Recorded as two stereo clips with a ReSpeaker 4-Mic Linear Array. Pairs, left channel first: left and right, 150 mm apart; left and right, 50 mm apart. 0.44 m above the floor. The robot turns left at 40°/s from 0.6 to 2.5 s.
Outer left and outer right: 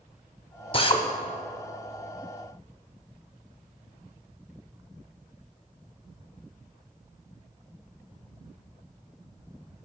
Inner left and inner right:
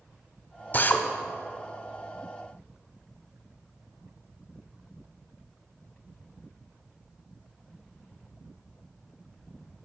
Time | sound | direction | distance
0.7 | a drill | 35° left (ahead or behind) | 0.6 m